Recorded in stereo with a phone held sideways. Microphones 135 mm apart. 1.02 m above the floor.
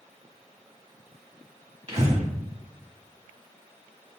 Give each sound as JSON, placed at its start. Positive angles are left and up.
{"t": 1.9, "sound": "breathing", "side_deg": -50, "distance_m": 1.3}